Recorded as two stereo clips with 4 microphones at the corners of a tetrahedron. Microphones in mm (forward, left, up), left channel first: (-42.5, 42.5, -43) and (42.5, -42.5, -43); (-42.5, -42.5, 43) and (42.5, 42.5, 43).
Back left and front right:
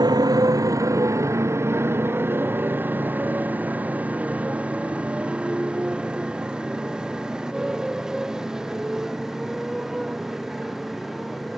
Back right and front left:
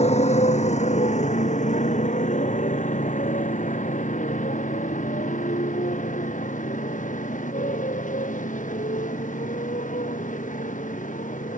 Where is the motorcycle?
105° right; by 11.6 s 135° right.